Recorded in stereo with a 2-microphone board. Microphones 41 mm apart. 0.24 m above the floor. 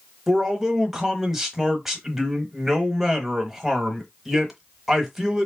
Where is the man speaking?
10° right (ahead or behind), 1.0 m.